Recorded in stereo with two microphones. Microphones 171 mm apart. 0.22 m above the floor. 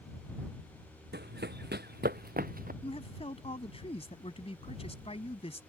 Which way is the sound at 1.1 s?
80° right.